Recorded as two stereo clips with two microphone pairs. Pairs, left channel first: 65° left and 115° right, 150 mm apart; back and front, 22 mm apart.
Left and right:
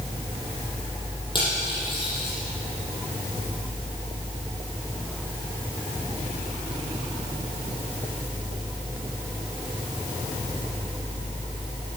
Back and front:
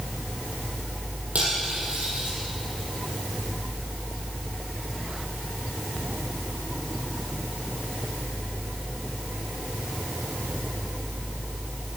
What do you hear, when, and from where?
1.4 s cutlery clinking: 10° left, 6 m